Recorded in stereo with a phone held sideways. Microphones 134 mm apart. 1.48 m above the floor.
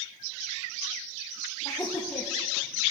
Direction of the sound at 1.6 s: 15° left (ahead or behind).